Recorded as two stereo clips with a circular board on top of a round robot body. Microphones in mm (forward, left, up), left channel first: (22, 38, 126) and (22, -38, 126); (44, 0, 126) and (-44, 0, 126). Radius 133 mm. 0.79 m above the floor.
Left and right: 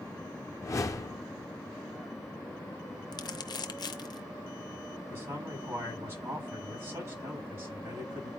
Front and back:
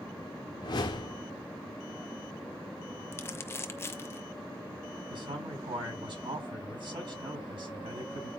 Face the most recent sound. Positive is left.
turn(degrees=-150)